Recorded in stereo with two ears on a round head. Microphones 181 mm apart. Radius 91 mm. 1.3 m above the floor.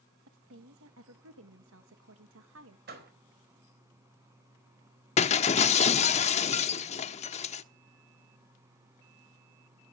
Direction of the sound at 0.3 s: 75° right (ahead or behind).